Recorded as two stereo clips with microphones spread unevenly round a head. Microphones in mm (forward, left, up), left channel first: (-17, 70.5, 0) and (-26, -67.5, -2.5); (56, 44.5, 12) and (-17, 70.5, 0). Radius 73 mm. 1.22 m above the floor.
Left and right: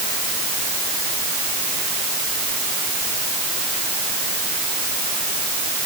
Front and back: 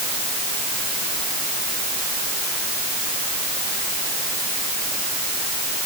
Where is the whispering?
No whispering in this recording.